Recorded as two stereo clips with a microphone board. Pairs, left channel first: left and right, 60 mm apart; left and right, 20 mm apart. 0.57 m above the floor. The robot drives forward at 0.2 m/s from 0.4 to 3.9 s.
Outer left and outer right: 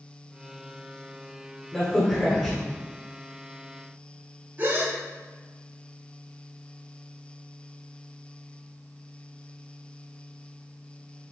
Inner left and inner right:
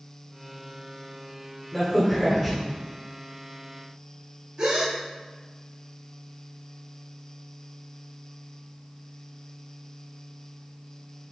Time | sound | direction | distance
1.7 | a crack | 5° right (ahead or behind) | 1.7 m
4.6 | a gasp | 35° right (ahead or behind) | 0.7 m